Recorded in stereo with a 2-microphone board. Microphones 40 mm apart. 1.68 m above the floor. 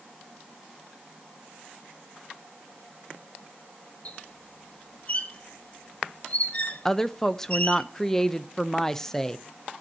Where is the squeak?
35° left (ahead or behind), 1.2 m.